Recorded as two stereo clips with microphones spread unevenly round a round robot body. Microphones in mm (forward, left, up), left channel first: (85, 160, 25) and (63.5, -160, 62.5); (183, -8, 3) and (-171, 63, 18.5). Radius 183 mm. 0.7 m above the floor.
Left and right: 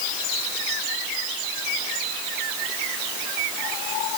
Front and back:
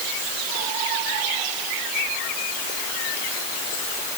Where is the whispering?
I don't hear whispering.